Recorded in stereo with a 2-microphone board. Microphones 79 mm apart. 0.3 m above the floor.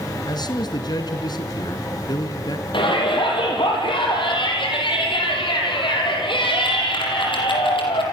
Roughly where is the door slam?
No door slam in this recording.